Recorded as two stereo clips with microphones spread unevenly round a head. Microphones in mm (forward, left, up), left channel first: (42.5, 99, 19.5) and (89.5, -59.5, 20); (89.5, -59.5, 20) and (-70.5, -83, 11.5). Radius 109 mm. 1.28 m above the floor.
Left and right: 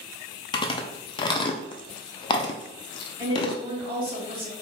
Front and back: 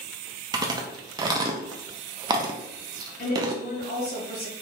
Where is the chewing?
150° left, 0.5 m.